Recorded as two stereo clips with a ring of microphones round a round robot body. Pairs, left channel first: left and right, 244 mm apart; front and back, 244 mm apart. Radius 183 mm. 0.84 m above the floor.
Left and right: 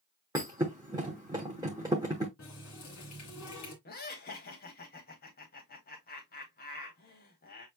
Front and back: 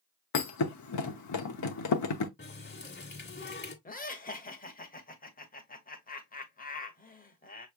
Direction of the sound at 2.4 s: 50° left.